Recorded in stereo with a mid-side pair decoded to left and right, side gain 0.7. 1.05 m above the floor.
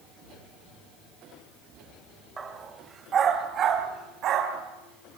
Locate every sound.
2.4 s a dog barking: 25° right, 2.5 m; by 5.2 s 55° right, 4.5 m